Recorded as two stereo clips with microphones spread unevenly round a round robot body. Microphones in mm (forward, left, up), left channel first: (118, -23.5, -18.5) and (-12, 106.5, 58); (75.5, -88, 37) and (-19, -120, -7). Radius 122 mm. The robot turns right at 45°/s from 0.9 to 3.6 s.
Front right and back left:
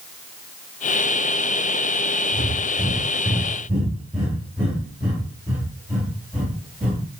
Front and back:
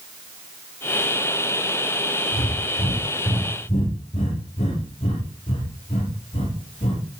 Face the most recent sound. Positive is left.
turn(degrees=55)